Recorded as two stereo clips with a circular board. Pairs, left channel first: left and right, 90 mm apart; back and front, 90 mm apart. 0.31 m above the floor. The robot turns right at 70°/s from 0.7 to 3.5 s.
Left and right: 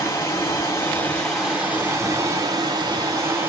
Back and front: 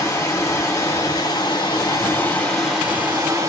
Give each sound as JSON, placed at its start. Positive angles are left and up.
{"t": 0.0, "sound": "running water", "azimuth_deg": 130, "distance_m": 1.4}